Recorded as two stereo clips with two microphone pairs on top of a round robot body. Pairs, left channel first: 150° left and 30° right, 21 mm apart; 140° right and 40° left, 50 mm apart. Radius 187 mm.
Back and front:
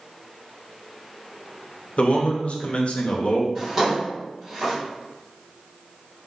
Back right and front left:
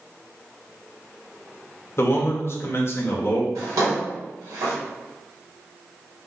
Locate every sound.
2.0 s a man speaking: 175° right, 0.7 m
3.5 s a drawer: 45° left, 0.6 m